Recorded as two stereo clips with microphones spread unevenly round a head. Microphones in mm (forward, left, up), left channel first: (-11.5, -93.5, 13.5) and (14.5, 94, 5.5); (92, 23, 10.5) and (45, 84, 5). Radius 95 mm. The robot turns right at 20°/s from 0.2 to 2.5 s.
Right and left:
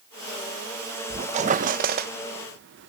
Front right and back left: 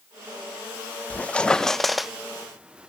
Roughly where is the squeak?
Ahead.